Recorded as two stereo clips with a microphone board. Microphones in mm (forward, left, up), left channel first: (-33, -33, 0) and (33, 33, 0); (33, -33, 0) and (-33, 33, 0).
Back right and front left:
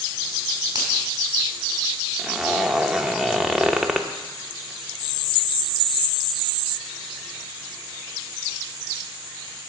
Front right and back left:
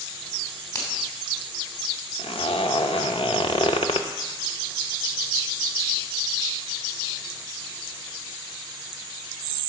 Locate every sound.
0.8 s a finger snap: 5° left, 2.5 m
2.2 s a zipper: 40° right, 0.7 m